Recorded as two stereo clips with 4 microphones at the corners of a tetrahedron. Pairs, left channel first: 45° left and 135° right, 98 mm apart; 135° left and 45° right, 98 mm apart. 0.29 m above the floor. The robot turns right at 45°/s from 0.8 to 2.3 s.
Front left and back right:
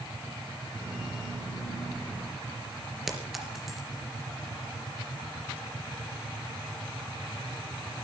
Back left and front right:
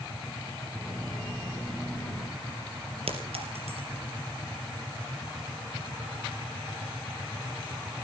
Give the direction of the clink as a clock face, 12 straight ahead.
2 o'clock.